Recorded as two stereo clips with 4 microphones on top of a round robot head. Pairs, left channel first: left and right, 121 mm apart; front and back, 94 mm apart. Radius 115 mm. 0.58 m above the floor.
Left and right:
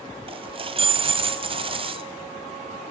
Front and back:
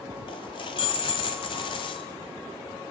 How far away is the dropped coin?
About 1.4 m.